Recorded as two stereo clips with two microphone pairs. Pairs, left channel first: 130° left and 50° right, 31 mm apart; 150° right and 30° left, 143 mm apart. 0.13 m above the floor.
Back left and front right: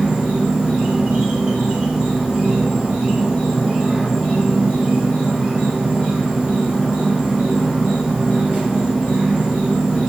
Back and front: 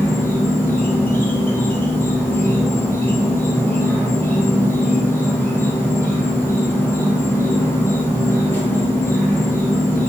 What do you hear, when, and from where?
0.0 s an insect: 85° right, 1.0 m